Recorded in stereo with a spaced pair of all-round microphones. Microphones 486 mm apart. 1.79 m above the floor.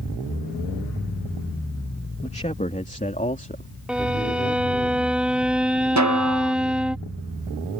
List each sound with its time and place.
2.2 s a man speaking: 15° left (ahead or behind)
3.9 s a violin: centre (ahead or behind)
6.0 s a snare drum: 35° right (ahead or behind)